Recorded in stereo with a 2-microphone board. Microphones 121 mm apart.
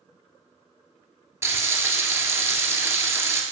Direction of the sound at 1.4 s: 20° right (ahead or behind).